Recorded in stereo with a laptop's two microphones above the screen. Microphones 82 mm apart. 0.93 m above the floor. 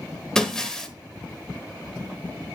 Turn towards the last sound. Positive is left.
turn(degrees=10)  # may be behind; listen again after turning